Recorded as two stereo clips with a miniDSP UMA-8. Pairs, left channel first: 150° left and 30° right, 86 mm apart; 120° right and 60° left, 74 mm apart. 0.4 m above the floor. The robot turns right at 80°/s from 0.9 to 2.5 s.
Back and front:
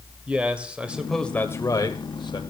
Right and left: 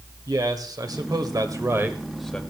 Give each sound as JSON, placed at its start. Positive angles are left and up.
{"t": 0.3, "sound": "a man speaking", "azimuth_deg": 45, "distance_m": 1.3}